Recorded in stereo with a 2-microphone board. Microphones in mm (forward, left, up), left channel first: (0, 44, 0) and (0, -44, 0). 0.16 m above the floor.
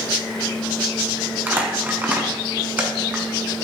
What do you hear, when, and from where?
1.5 s crumpling: 20° right (ahead or behind), 1.3 m